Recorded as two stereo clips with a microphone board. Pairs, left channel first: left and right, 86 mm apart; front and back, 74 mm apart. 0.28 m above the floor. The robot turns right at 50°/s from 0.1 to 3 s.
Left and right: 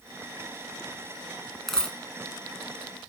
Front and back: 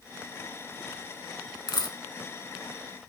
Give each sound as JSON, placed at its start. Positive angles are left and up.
{"t": 1.7, "sound": "a dropped coin", "azimuth_deg": 5, "distance_m": 0.7}